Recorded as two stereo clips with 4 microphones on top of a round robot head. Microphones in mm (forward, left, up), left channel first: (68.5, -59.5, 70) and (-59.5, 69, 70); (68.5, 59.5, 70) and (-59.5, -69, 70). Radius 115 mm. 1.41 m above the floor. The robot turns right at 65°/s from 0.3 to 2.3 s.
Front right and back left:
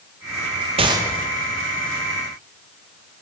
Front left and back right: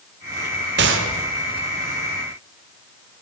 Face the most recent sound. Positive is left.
turn(degrees=-65)